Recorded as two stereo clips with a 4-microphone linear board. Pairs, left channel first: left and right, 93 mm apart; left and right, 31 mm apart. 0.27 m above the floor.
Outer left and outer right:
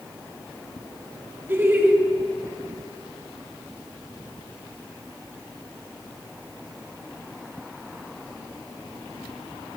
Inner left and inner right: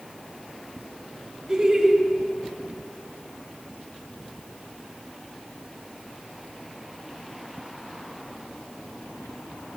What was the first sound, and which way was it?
Laughter, 25° right (ahead or behind).